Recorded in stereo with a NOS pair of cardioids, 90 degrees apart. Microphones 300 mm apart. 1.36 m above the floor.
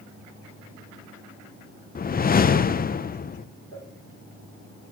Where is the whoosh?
30° left, 0.8 m.